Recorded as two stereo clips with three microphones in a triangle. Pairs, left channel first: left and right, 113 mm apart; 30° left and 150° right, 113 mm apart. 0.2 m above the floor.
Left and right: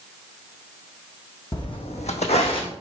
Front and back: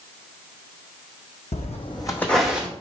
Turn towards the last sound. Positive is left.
turn(degrees=135)